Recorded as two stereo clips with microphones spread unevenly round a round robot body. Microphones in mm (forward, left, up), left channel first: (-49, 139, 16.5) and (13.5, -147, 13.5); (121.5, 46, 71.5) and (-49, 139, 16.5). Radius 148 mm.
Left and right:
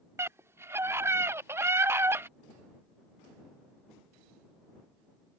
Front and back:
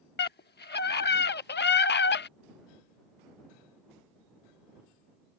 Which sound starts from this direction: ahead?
A scream, at 0.2 s.